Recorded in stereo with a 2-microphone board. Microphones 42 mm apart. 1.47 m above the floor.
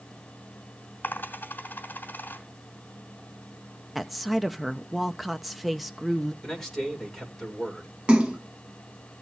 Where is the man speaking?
5° left (ahead or behind), 6.5 m.